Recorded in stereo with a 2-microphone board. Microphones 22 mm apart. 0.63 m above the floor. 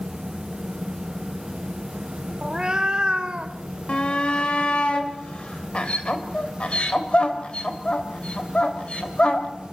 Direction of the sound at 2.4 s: 25° right (ahead or behind).